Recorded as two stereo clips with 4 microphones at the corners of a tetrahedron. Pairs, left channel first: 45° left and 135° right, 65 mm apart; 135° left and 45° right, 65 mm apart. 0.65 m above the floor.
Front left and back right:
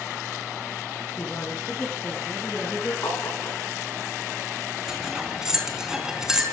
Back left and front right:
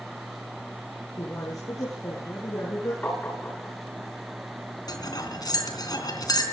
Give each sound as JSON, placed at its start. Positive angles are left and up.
{"t": 1.2, "sound": "a woman speaking", "azimuth_deg": 105, "distance_m": 6.5}
{"t": 3.0, "sound": "tapping", "azimuth_deg": 75, "distance_m": 8.0}
{"t": 4.9, "sound": "cutlery clinking", "azimuth_deg": 145, "distance_m": 3.5}